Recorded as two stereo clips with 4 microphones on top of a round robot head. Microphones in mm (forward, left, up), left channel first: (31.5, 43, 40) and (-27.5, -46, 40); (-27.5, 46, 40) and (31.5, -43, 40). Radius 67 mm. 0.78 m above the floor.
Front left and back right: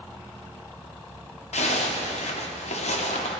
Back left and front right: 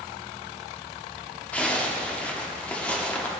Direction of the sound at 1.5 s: 45° left.